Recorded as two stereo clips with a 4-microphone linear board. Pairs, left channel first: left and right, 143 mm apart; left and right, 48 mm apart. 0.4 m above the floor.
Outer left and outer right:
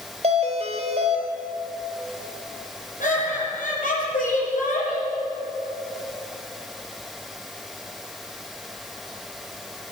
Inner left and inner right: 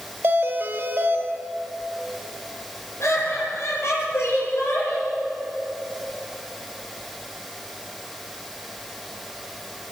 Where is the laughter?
65° left (ahead or behind), 8.5 m.